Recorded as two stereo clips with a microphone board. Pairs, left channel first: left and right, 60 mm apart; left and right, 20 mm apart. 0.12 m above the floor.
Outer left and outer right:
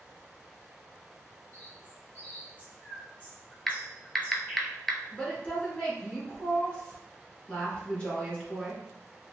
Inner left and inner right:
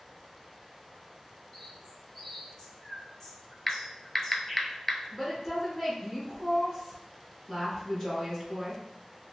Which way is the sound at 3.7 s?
5° left (ahead or behind).